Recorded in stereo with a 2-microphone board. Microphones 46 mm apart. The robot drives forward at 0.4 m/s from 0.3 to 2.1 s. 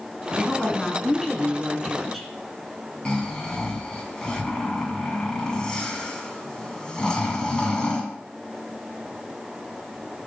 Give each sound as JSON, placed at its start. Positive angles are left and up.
{"t": 0.4, "sound": "a woman speaking", "side_deg": 5, "distance_m": 1.8}
{"t": 3.0, "sound": "snoring", "side_deg": 15, "distance_m": 1.6}